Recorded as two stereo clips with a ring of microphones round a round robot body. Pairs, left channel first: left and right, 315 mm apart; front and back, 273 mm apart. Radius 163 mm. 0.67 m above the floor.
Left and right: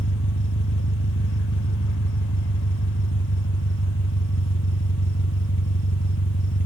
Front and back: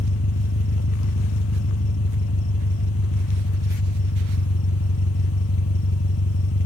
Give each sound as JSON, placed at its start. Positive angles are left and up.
{"t": 0.0, "sound": "an engine running", "azimuth_deg": 35}